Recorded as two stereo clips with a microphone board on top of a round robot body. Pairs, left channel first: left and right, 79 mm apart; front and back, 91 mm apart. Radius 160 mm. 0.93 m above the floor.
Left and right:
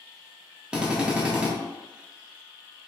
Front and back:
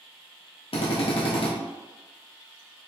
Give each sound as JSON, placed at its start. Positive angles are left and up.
{"t": 0.7, "sound": "a drill", "azimuth_deg": -10, "distance_m": 0.9}